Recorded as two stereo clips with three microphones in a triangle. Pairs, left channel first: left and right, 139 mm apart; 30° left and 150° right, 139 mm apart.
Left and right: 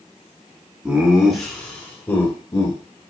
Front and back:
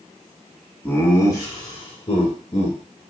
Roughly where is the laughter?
Ahead right.